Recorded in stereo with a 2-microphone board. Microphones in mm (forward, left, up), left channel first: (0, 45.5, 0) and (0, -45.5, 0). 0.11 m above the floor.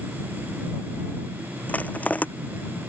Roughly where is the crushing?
Centre.